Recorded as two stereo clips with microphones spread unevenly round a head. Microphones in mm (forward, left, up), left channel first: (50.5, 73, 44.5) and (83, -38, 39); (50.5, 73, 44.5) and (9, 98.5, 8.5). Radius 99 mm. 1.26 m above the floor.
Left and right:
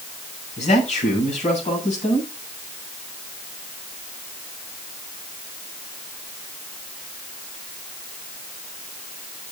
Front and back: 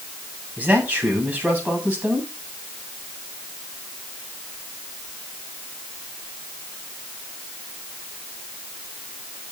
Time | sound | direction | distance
0.6 | a man speaking | 85° left | 8.5 m